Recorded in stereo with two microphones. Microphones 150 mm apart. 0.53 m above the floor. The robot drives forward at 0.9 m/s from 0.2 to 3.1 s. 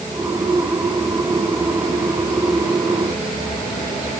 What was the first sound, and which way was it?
Only background noise.